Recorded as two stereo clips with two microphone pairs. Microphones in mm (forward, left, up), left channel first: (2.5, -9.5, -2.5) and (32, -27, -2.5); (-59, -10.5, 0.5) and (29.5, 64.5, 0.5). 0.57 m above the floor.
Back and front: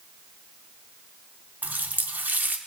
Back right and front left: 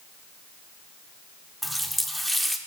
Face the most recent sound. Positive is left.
turn(degrees=-50)